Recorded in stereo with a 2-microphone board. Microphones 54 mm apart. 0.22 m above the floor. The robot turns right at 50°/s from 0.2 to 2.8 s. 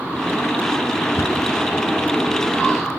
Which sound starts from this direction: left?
A cupboard door, at 1.2 s.